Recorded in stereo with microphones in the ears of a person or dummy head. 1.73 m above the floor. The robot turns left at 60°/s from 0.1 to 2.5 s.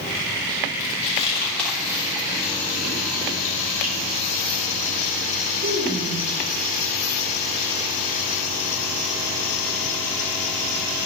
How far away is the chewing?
About 3 m.